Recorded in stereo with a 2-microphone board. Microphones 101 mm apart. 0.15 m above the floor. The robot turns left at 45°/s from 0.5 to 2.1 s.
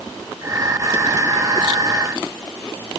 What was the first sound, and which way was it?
Only background noise.